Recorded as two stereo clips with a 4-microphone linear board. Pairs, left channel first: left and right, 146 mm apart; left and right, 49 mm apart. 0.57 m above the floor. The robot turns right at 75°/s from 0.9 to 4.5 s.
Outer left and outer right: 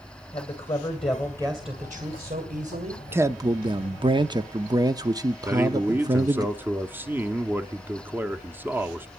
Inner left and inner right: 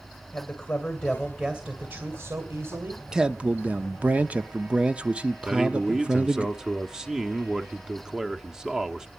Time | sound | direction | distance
0.3 | a man speaking | 130° left | 2 m
3.1 | a man speaking | 155° right | 0.7 m
5.5 | a man speaking | 15° right (ahead or behind) | 1.0 m